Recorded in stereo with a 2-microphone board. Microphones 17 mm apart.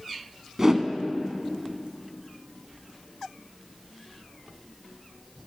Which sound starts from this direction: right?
A whoosh, at 0.6 s.